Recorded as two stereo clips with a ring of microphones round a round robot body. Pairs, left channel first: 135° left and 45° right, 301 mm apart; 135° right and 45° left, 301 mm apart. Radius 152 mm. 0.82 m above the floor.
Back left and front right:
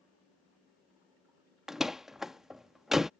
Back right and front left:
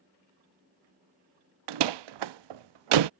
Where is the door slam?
45° left.